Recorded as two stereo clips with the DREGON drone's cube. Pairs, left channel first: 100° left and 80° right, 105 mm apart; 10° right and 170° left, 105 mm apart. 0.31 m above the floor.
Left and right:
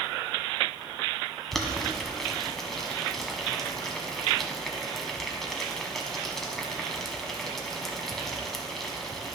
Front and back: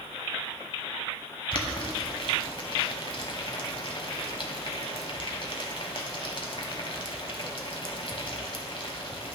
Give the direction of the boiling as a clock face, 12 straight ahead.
12 o'clock.